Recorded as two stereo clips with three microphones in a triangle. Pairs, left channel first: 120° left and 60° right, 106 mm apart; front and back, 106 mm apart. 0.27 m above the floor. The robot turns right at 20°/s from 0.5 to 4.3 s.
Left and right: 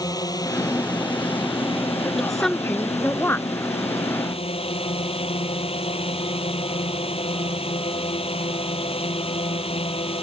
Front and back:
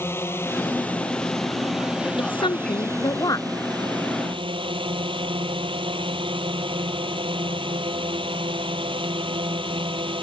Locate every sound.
0.0 s a drone: 70° left; by 10.2 s 145° left
2.2 s a woman speaking: 30° left; by 3.5 s 55° left